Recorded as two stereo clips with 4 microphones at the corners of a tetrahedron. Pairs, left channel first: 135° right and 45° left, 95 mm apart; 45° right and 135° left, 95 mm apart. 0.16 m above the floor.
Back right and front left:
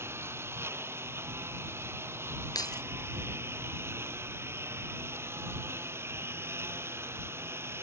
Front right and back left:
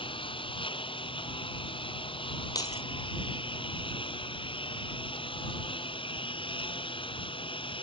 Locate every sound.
0.0 s a lawn mower: 20° right
2.5 s keys jangling: 90° right